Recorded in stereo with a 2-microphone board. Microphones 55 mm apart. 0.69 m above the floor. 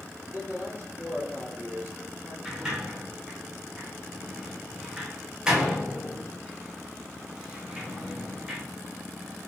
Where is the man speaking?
50° right (ahead or behind), 2.5 m.